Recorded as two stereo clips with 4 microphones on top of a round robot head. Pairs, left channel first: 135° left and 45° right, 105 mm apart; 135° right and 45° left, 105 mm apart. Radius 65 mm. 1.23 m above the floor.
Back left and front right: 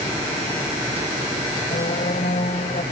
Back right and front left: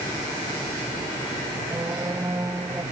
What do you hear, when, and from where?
1.7 s a squeak: 110° left